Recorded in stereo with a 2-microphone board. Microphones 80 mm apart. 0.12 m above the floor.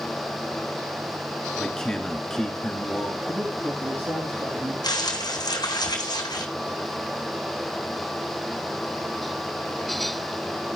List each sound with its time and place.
1.6 s a man speaking: 5° left (ahead or behind), 1.7 m
3.3 s a man speaking: 45° right (ahead or behind), 5 m
4.8 s crumpling: 65° left (ahead or behind), 2.5 m